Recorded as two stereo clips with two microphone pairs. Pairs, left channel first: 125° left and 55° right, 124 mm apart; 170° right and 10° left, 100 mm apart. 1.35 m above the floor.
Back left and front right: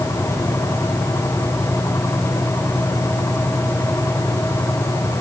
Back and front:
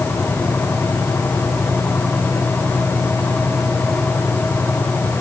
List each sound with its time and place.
Only background noise.